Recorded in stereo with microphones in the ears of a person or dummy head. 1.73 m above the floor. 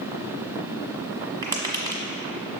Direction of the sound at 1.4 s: 15° right (ahead or behind).